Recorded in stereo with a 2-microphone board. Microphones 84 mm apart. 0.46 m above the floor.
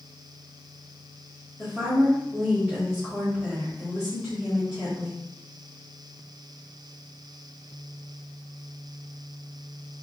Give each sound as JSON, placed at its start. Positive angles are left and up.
{"t": 1.6, "sound": "a woman speaking", "side_deg": -5, "distance_m": 1.8}